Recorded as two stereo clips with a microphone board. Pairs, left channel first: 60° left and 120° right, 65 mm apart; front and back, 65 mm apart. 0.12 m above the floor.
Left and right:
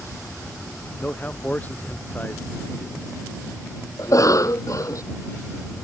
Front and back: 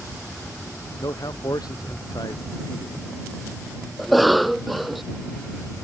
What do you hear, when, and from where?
1.0 s a man speaking: straight ahead
4.0 s a cough: 90° left